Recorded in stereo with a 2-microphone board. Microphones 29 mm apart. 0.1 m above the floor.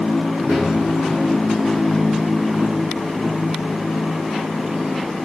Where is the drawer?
55° right (ahead or behind), 3 m.